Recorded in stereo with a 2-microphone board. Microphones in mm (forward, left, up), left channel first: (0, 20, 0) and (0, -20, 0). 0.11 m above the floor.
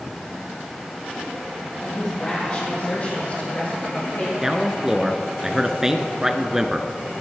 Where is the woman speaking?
15° left (ahead or behind), 4 m; by 4.3 s 45° left (ahead or behind), 7 m.